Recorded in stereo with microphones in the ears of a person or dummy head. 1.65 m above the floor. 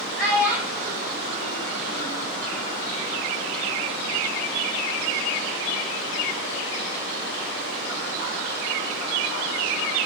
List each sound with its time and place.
0.2 s a child speaking: centre (ahead or behind), 1.9 m; by 2.2 s 45° right (ahead or behind), 2.0 m